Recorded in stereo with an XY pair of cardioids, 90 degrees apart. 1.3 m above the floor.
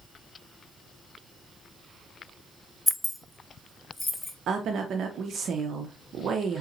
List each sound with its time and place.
2.9 s keys jangling: straight ahead, 0.6 m; by 4.3 s 20° left, 1.4 m
4.5 s a woman speaking: 70° right, 0.7 m